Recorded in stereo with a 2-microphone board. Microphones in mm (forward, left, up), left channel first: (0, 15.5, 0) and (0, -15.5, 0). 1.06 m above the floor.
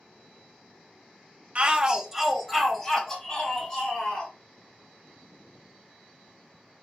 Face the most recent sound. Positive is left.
turn(degrees=20)  # may be behind; listen again after turning